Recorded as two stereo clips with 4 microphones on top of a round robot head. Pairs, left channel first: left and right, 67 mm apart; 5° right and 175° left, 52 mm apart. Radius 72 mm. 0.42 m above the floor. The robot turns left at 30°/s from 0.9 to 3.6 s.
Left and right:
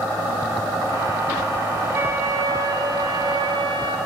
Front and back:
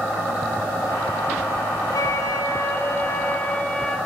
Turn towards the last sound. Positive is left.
turn(degrees=-80)